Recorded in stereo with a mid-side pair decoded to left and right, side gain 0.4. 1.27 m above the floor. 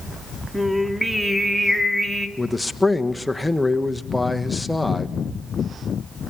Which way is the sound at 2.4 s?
10° left.